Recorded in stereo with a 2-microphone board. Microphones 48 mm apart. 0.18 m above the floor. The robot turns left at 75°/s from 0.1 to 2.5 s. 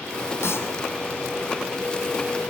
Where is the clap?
65° left (ahead or behind), 5 m; by 0.7 s 50° left (ahead or behind), 5 m.